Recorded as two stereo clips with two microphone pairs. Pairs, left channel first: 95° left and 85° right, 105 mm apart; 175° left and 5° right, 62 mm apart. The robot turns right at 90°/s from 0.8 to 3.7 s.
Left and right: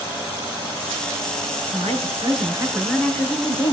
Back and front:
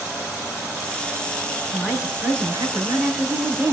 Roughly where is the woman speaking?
Right.